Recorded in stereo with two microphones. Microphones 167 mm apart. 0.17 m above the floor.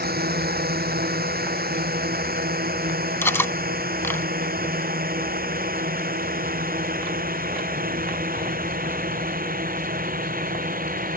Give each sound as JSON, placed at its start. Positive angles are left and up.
{"t": 0.0, "sound": "a drone", "side_deg": -70}
{"t": 3.2, "sound": "cutlery clinking", "side_deg": 15}